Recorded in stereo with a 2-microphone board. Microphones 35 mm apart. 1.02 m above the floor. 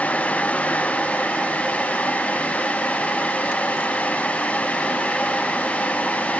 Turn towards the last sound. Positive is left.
No sound to turn to.